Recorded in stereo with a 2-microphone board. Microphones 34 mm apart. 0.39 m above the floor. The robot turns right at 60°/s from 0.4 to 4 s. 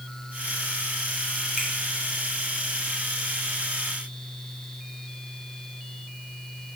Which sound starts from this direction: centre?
A finger snap, at 1.6 s.